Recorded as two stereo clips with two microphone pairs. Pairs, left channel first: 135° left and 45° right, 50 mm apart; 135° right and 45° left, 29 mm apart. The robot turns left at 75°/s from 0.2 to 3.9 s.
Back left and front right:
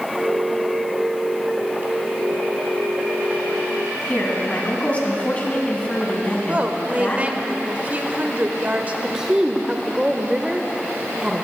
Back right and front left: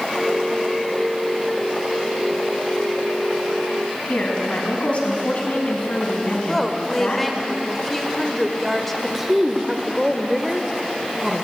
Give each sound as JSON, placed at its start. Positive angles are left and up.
{"t": 4.1, "sound": "a woman speaking", "azimuth_deg": -165, "distance_m": 2.5}
{"t": 6.3, "sound": "a woman speaking", "azimuth_deg": -45, "distance_m": 0.9}
{"t": 9.0, "sound": "a woman speaking", "azimuth_deg": 0, "distance_m": 0.8}